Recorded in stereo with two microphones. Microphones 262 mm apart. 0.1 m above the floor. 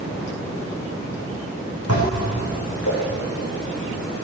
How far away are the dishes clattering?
About 4 m.